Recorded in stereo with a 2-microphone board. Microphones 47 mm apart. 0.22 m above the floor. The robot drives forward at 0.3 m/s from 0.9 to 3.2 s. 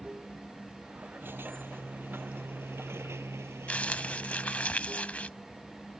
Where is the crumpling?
30° left (ahead or behind).